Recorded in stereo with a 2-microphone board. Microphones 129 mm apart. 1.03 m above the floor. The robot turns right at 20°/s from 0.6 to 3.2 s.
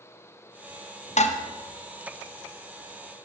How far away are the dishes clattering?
About 0.5 m.